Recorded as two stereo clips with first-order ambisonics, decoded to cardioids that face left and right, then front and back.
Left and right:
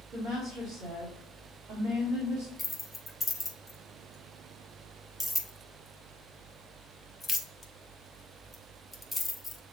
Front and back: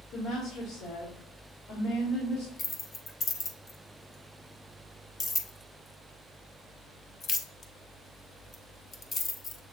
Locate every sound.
0.1 s a woman speaking: 25° right, 2 m
2.6 s keys jangling: 15° left, 0.5 m